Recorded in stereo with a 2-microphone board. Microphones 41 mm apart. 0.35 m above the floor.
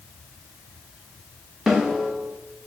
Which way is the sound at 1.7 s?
5° right (ahead or behind).